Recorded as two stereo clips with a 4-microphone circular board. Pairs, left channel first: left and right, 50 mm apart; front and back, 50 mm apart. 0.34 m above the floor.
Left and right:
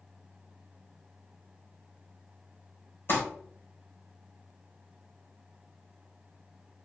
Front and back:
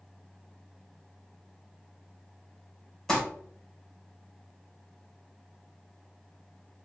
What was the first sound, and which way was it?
Crumpling, 80° left.